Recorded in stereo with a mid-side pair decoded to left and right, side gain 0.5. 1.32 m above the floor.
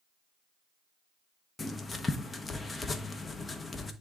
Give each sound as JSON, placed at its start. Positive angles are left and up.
{"t": 1.6, "sound": "writing", "azimuth_deg": 25, "distance_m": 1.0}